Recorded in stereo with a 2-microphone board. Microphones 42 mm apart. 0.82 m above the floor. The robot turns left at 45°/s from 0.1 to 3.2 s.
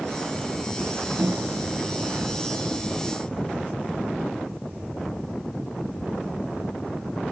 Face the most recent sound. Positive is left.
turn(degrees=160)